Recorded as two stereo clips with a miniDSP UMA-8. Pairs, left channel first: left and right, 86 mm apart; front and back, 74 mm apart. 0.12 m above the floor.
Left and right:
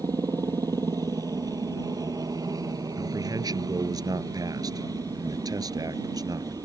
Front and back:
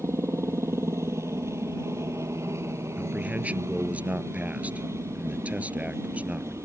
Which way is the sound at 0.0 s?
130° right.